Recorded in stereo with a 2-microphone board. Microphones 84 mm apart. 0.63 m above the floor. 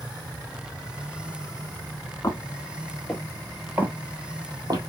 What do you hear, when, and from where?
2.2 s footsteps: 35° left (ahead or behind), 1.1 m; by 4.8 s 55° right (ahead or behind), 1.2 m